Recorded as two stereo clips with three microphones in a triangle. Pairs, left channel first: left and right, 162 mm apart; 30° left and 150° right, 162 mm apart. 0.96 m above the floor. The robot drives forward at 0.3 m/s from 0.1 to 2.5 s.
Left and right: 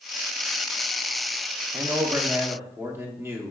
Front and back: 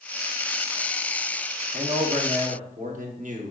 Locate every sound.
1.7 s a man speaking: 155° right, 0.6 m; by 3.5 s 165° right, 0.8 m